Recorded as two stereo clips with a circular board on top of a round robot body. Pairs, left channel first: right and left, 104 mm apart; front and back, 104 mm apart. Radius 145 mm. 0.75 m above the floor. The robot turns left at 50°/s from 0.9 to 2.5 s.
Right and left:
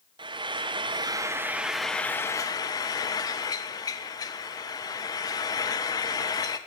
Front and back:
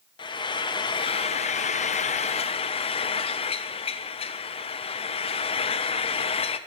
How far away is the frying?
About 0.5 m.